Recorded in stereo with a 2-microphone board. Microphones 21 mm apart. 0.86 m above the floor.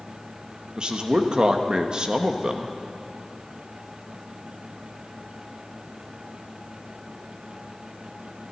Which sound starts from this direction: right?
A man speaking, at 0.8 s.